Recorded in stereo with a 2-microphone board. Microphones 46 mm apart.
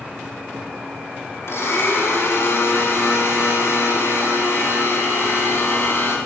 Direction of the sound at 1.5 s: 75° left (ahead or behind).